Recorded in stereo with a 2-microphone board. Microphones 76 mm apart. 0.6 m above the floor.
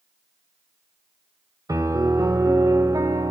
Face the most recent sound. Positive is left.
turn(degrees=-50)  # may be behind; listen again after turning